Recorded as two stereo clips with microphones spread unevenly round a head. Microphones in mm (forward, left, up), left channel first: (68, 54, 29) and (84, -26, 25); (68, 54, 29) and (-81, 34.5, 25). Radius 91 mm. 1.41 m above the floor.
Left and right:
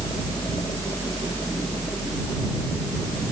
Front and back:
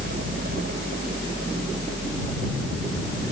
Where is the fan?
165° left.